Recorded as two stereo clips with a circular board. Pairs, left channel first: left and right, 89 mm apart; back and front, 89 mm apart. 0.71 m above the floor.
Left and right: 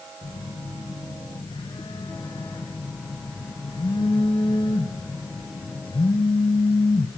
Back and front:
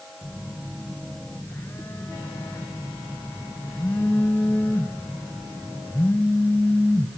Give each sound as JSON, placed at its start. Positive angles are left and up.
{"t": 0.2, "sound": "a phone buzzing", "azimuth_deg": 115, "distance_m": 3.5}